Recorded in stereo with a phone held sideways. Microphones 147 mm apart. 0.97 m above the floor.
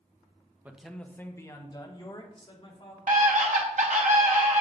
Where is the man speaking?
10° right (ahead or behind), 0.6 m; by 3.0 s 40° left (ahead or behind), 2 m.